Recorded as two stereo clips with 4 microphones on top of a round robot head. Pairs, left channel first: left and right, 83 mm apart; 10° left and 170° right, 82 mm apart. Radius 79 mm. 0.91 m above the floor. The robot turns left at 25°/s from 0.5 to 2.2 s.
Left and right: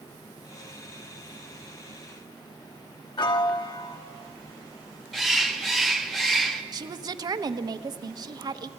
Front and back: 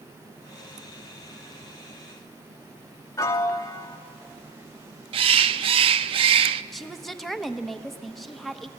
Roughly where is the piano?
Ahead left.